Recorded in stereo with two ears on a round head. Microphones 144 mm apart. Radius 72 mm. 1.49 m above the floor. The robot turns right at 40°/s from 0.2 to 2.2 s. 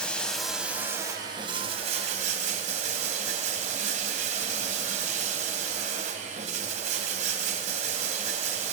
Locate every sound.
0.0 s running water: 170° left, 1.9 m; by 8.7 s 110° right, 1.9 m